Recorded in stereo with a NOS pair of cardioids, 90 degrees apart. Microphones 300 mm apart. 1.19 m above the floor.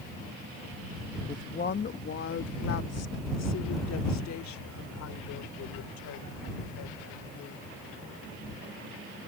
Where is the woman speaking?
25° left; by 7.7 s 75° left.